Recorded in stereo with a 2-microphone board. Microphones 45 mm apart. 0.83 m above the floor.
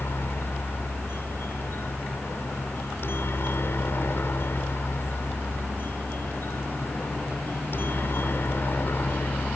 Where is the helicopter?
60° left (ahead or behind); by 9.6 s 50° left (ahead or behind).